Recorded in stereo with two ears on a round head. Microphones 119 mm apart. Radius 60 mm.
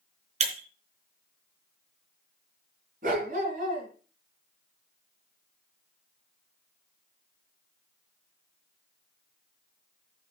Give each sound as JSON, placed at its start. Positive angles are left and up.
{"t": 0.4, "sound": "breaking glass", "side_deg": -55, "distance_m": 3.5}
{"t": 3.0, "sound": "a dog barking", "side_deg": -70, "distance_m": 3.5}